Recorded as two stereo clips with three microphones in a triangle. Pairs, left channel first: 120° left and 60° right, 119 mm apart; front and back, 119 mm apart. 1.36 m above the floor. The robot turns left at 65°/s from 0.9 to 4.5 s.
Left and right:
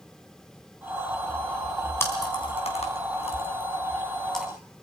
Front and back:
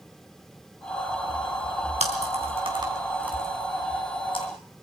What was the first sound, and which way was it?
Chewing, 170° right.